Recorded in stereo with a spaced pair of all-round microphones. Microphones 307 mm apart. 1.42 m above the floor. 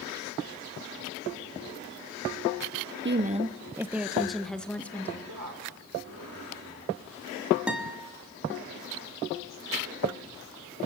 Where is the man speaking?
75° right (ahead or behind), 6 m.